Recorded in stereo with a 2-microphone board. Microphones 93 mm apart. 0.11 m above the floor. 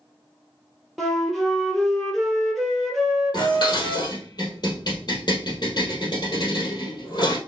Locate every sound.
1.0 s a flute: centre (ahead or behind), 1.3 m
3.3 s dishes clattering: 50° left (ahead or behind), 2.5 m